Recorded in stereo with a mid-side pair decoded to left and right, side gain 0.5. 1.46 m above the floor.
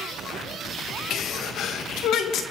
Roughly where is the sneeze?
Ahead left.